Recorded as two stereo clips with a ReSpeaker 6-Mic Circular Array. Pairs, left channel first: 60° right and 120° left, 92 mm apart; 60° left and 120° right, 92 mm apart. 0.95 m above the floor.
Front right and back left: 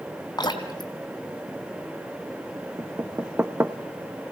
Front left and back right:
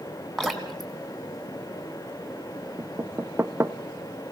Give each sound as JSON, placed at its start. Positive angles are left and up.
{"t": 0.4, "sound": "dripping", "azimuth_deg": -25, "distance_m": 2.5}
{"t": 2.8, "sound": "knocking", "azimuth_deg": 180, "distance_m": 0.8}